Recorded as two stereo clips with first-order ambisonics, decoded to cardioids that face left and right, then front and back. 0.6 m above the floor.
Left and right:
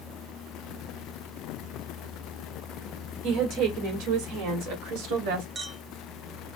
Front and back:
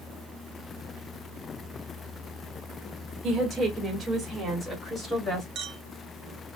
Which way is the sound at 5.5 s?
155° right.